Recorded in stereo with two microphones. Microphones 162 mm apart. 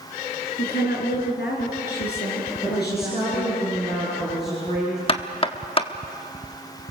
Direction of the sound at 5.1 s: 35° left (ahead or behind).